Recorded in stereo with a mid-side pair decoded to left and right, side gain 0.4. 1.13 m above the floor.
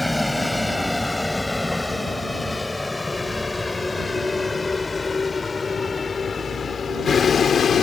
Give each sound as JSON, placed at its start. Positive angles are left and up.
{"t": 0.0, "sound": "a vehicle", "azimuth_deg": 10}